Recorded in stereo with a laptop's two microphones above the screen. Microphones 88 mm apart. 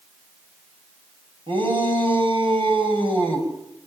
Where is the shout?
80° right, 6 m.